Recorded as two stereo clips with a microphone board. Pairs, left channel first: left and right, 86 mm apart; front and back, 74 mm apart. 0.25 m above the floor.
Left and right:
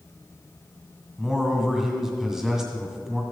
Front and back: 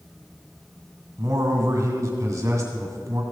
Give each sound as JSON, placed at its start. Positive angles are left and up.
{"t": 1.2, "sound": "a man speaking", "azimuth_deg": -170, "distance_m": 2.0}